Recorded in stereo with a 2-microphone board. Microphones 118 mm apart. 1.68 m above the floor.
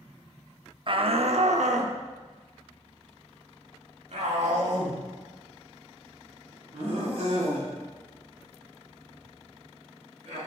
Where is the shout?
45° right (ahead or behind), 0.7 m; by 10.4 s 75° right (ahead or behind), 7 m.